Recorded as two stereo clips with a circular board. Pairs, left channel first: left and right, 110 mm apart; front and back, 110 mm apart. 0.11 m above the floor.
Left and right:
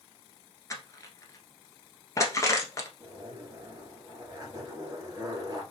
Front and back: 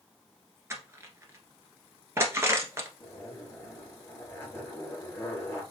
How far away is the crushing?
About 1.1 m.